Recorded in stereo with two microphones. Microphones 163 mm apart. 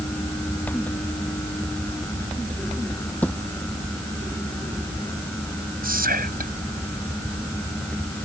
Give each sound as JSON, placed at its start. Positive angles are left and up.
{"t": 3.2, "sound": "a thud", "side_deg": 10}
{"t": 5.8, "sound": "whispering", "side_deg": -70}